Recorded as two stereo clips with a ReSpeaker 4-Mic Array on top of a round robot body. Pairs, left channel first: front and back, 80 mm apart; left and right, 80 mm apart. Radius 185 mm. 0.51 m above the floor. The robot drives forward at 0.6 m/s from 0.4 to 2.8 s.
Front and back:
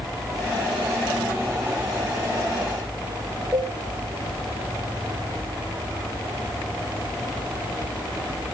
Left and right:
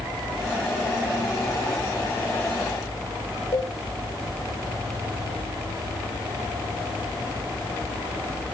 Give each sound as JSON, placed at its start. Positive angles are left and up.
{"t": 3.5, "sound": "a cowbell", "azimuth_deg": 110, "distance_m": 5.5}